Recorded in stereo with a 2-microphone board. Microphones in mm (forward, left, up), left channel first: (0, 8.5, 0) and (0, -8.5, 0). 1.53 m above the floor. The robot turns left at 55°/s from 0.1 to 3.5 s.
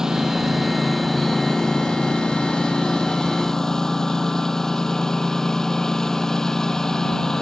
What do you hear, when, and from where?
0.0 s a lawn mower: 135° right; by 7.4 s 35° left